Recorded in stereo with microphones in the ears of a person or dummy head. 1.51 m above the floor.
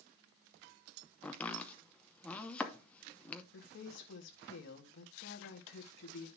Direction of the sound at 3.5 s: 65° left (ahead or behind).